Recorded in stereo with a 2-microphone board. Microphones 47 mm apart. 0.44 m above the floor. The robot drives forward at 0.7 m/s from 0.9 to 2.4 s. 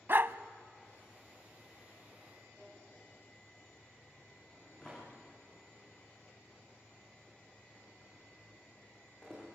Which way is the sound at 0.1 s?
45° right (ahead or behind).